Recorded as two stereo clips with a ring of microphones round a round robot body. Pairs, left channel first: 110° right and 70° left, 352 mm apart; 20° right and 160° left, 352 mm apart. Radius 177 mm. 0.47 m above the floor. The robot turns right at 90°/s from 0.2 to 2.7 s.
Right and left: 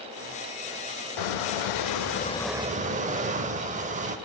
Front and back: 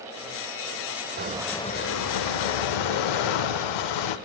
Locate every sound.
1.2 s a squeak: 140° right, 0.6 m; by 4.2 s 5° right, 0.6 m